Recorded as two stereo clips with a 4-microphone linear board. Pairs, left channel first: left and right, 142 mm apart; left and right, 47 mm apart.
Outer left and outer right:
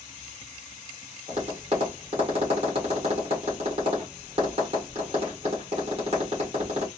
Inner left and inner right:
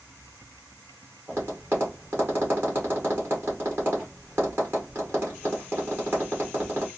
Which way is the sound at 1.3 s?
45° right (ahead or behind).